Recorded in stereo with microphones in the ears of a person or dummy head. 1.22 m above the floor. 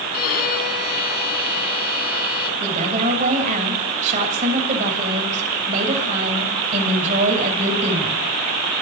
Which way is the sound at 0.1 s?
50° left (ahead or behind).